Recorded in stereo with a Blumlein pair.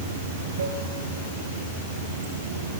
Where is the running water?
65° right, 2.5 m.